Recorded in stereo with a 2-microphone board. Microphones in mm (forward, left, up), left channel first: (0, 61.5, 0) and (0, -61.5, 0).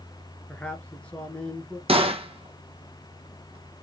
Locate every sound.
0.5 s a man speaking: 10° left (ahead or behind), 1.2 m
1.9 s a gunshot: 50° right (ahead or behind), 0.9 m